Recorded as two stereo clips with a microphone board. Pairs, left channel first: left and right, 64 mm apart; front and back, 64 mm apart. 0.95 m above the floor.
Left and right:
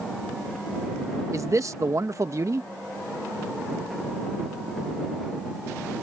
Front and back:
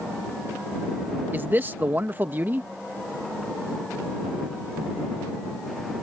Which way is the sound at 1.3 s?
125° right.